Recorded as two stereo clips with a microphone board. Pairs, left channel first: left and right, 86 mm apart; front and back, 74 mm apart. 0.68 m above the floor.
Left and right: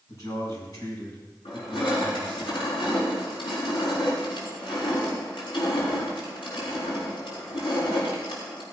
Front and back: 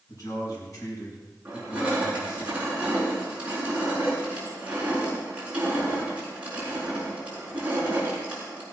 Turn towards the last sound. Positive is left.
turn(degrees=105)